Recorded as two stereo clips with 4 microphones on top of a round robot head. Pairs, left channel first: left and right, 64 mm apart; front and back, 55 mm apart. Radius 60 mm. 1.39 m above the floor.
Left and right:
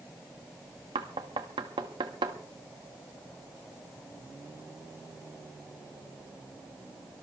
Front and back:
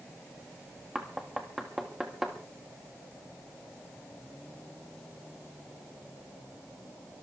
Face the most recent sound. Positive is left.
turn(degrees=-90)